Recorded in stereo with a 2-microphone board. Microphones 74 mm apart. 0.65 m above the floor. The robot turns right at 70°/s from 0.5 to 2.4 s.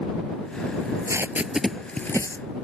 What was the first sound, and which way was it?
Tape being pulled, 60° right (ahead or behind).